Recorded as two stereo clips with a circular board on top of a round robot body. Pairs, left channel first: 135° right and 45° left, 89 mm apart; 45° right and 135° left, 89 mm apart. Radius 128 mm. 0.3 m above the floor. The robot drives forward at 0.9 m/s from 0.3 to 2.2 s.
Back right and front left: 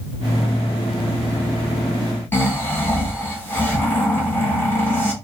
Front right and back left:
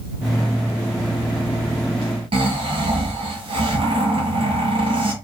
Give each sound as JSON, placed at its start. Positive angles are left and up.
{"t": 2.3, "sound": "snoring", "azimuth_deg": 155, "distance_m": 1.7}